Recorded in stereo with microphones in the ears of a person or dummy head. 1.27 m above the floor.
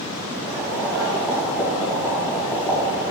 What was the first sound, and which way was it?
Boiling, 15° right (ahead or behind).